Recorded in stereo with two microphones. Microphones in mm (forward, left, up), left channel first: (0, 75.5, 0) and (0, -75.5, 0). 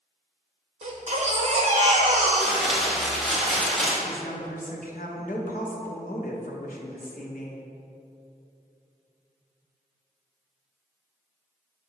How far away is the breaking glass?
I don't hear breaking glass.